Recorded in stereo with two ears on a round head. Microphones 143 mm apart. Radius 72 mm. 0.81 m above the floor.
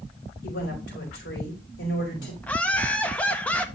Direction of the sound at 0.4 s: 80° left.